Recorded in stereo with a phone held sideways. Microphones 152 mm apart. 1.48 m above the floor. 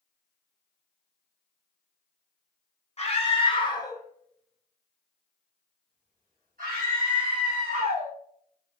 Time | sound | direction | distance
3.0 | a scream | 45° left (ahead or behind) | 1.1 m